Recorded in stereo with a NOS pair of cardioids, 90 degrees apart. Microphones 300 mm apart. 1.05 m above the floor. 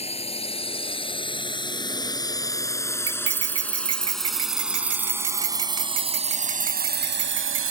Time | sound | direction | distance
0.0 | a drone | 20° left | ?
3.1 | cutlery clinking | 50° right | ?